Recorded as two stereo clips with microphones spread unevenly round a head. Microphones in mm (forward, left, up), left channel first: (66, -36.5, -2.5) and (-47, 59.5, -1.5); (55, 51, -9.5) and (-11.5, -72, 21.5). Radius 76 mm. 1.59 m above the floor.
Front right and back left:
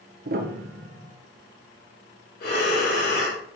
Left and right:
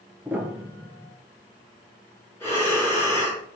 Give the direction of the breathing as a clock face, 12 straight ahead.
12 o'clock.